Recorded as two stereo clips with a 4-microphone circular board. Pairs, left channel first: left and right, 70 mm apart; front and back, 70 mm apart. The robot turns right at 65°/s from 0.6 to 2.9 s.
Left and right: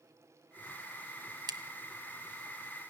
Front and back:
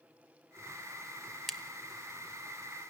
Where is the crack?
90° right, 1.4 m; by 2.9 s 5° left, 1.4 m.